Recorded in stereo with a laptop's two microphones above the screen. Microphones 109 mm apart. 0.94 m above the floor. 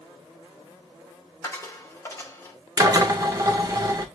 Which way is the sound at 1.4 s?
25° left (ahead or behind).